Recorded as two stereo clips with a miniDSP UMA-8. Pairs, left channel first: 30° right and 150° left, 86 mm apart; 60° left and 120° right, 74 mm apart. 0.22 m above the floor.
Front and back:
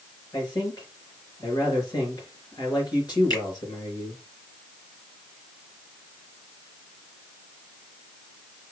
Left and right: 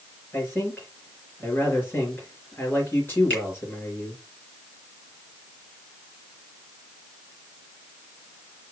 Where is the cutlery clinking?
No cutlery clinking in this recording.